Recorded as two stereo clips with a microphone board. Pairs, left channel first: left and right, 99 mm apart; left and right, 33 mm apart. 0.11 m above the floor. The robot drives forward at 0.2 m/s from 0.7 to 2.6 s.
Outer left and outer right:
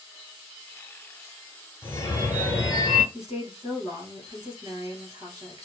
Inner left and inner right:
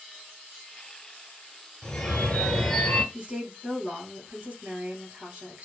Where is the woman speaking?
40° right (ahead or behind), 1.6 m.